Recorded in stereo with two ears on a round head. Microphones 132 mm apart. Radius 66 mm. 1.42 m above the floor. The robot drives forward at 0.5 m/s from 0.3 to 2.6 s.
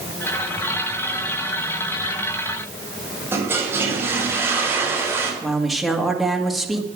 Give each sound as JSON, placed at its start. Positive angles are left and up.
{"t": 3.3, "sound": "a toilet flushing", "side_deg": -15, "distance_m": 4.5}
{"t": 5.4, "sound": "a woman speaking", "side_deg": 0, "distance_m": 2.0}